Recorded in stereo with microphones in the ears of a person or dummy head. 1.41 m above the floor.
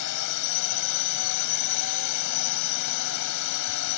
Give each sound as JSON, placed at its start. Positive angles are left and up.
{"t": 0.0, "sound": "a drone", "side_deg": 65}